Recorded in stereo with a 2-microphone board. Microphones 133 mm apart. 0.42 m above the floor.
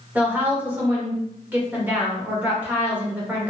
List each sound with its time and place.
0.1 s a woman speaking: 10° right (ahead or behind), 1.0 m